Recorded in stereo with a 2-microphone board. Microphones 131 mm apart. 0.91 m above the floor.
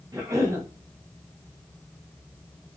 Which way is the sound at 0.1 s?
25° right (ahead or behind).